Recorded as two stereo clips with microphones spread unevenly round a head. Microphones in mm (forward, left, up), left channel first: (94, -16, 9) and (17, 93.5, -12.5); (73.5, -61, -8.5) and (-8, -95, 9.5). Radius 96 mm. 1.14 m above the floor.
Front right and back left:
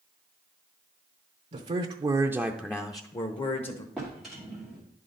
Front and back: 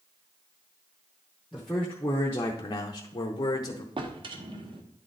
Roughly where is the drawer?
Behind right.